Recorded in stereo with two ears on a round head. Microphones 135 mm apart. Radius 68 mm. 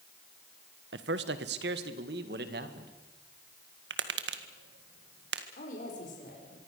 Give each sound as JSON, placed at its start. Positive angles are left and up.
{"t": 0.9, "sound": "a man speaking", "side_deg": -85, "distance_m": 1.5}
{"t": 3.9, "sound": "tapping", "side_deg": -80, "distance_m": 1.8}
{"t": 5.6, "sound": "a woman speaking", "side_deg": 50, "distance_m": 6.5}